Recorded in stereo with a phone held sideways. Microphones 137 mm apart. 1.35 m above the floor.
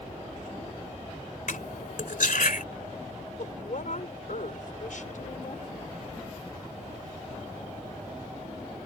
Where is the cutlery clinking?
80° left.